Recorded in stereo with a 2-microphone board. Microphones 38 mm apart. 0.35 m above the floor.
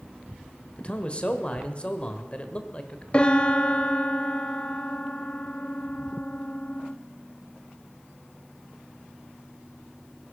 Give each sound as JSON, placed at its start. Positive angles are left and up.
{"t": 0.8, "sound": "a man speaking", "side_deg": 30, "distance_m": 1.3}
{"t": 3.1, "sound": "a piano", "side_deg": 30, "distance_m": 0.6}